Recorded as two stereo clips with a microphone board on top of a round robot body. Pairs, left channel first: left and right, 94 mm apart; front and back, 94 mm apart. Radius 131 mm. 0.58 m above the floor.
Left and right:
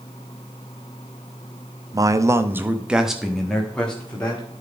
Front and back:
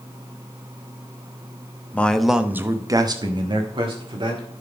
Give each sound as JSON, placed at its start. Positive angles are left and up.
{"t": 1.9, "sound": "a man speaking", "azimuth_deg": -70, "distance_m": 1.1}